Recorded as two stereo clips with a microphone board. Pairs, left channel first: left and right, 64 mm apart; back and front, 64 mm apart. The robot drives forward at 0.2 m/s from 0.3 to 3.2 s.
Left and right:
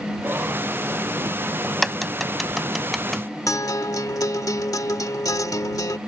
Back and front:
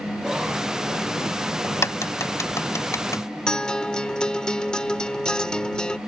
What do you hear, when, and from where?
1.6 s a crack: straight behind
3.5 s a guitar: 105° left